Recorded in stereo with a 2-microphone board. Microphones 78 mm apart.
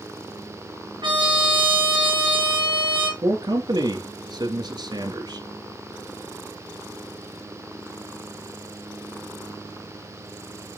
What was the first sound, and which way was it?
A trumpet, 75° right (ahead or behind).